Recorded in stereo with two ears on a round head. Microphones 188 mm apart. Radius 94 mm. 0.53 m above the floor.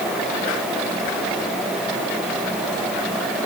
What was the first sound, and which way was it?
Only background noise.